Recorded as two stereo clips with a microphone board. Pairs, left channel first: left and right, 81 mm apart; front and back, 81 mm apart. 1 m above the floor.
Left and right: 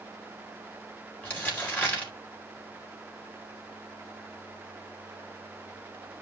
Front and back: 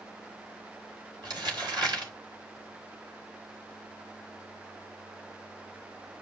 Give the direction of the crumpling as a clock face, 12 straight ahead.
7 o'clock.